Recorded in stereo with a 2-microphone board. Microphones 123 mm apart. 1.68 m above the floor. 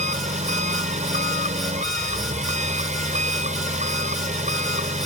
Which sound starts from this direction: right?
An engine running, at 0.0 s.